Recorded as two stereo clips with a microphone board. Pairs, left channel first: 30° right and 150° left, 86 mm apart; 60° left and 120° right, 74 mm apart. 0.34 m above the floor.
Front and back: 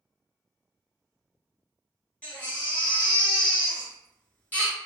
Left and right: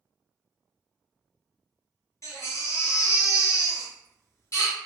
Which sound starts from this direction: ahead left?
A baby crying, at 2.2 s.